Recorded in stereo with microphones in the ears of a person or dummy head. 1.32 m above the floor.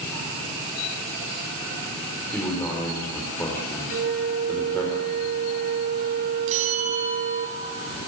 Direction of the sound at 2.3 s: 10° left (ahead or behind).